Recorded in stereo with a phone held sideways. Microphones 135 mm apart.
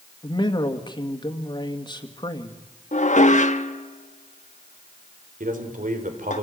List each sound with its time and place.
0.2 s a man speaking: 35° left (ahead or behind), 2 m
2.9 s dishes clattering: 65° left (ahead or behind), 1.1 m
5.4 s a man speaking: 80° right, 4 m